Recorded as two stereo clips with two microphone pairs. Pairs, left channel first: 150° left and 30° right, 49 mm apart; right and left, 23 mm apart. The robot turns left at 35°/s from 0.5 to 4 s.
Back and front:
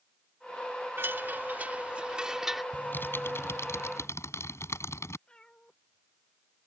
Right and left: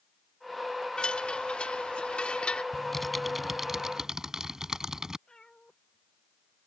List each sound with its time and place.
1.0 s a chime: 55° right; by 2.6 s 115° right
2.7 s typing on a keyboard: 160° right; by 5.2 s 155° left
5.3 s a cat meowing: 140° right